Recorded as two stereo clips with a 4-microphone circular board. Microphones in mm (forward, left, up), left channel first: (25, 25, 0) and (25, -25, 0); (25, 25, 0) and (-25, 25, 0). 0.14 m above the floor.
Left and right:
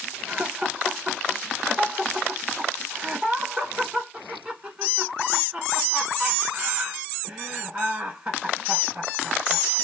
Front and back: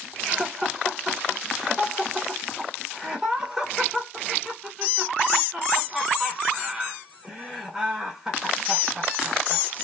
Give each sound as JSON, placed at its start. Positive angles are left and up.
{"t": 0.3, "sound": "laughter", "azimuth_deg": -130, "distance_m": 1.4}